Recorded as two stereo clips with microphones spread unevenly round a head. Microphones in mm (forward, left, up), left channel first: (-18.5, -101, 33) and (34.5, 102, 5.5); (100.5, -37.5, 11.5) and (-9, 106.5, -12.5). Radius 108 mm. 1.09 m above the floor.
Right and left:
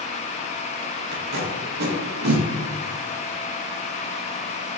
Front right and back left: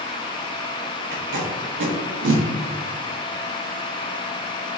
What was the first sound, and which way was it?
Tape being pulled, 120° left.